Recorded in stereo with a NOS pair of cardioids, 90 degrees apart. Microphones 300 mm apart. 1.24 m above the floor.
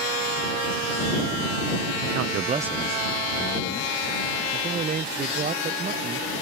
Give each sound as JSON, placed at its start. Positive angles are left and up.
{"t": 2.1, "sound": "a man speaking", "azimuth_deg": -65}
{"t": 4.5, "sound": "a man speaking", "azimuth_deg": -30}